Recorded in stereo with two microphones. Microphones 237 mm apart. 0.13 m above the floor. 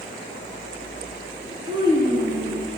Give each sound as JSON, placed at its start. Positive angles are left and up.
{"t": 1.7, "sound": "a child speaking", "side_deg": -20, "distance_m": 1.4}